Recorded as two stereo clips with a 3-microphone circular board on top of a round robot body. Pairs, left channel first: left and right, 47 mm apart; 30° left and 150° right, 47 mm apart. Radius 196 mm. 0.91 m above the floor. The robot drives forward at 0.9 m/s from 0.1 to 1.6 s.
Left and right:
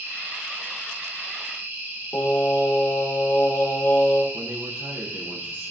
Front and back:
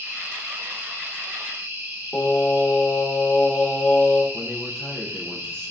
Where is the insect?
125° right, 3 m; by 5.7 s 145° right, 4 m.